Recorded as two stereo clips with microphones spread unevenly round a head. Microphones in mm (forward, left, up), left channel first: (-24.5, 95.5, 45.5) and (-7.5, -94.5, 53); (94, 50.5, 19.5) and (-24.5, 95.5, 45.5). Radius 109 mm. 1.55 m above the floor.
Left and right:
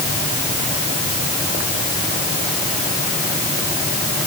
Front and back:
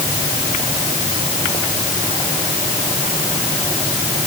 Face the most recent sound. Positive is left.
No sound to turn to.